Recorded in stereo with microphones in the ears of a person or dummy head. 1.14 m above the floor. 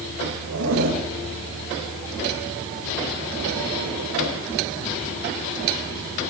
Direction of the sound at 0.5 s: 75° right (ahead or behind).